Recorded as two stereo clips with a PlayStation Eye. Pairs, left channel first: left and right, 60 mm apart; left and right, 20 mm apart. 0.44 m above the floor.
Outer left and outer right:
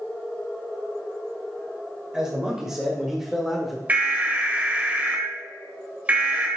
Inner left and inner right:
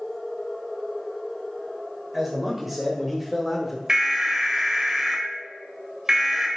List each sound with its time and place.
2.1 s a man speaking: 10° right (ahead or behind), 1.8 m; by 3.8 s centre (ahead or behind), 1.2 m
3.9 s an alarm: 25° right (ahead or behind), 1.7 m